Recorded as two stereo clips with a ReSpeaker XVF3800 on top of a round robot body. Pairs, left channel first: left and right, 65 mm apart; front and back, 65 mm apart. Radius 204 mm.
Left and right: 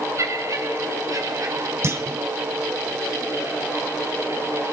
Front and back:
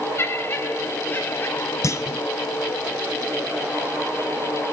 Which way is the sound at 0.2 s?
50° right.